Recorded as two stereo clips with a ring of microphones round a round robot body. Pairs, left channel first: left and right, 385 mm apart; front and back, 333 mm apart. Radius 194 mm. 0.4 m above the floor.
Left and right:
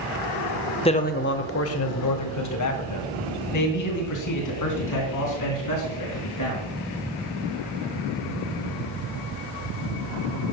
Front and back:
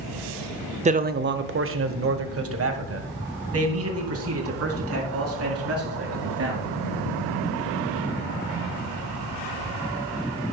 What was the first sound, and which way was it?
A man speaking, 145° left.